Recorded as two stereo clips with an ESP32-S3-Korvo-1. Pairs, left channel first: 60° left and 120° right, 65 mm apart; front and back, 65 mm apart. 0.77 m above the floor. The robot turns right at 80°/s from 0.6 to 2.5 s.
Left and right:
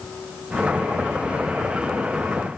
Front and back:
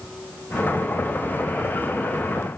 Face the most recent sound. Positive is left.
No sound to turn to.